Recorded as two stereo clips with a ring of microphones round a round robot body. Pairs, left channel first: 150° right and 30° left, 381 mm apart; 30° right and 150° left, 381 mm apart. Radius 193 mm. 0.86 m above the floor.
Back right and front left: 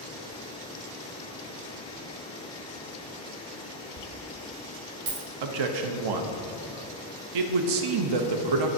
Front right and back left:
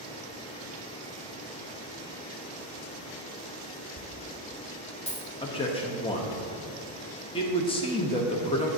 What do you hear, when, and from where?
4.0 s a dropped coin: 45° left, 1.4 m
5.4 s a man speaking: 45° left, 0.8 m